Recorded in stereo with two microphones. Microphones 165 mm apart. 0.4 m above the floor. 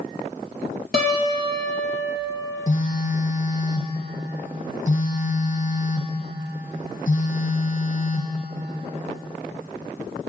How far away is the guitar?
About 2.5 m.